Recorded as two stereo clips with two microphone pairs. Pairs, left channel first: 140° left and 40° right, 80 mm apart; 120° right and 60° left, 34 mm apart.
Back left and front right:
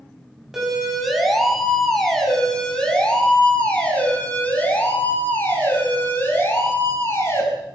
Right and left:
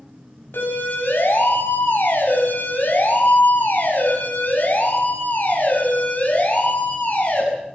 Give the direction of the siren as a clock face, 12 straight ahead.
4 o'clock.